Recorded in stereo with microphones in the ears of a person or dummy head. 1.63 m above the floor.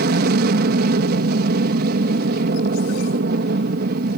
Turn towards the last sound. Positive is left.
turn(degrees=-55)  # may be behind; listen again after turning